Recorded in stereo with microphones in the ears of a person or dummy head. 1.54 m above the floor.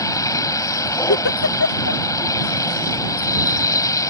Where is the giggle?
75° left (ahead or behind).